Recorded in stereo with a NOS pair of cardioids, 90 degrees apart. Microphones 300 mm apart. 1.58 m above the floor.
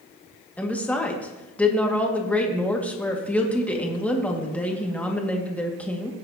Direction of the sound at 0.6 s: 5° left.